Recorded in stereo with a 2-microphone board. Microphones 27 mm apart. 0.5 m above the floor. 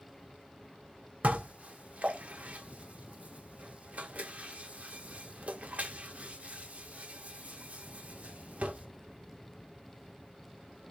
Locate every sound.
1.2 s dishes clattering: 45° right (ahead or behind), 0.7 m